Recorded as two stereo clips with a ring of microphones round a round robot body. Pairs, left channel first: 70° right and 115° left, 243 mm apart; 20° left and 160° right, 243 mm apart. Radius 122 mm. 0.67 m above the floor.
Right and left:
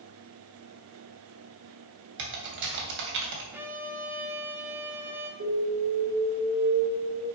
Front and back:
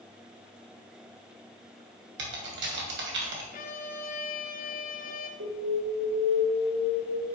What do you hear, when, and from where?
2.2 s typing on a keyboard: 155° left, 2.5 m
3.5 s a violin: 35° left, 1.2 m
5.4 s an alarm: 160° left, 3.5 m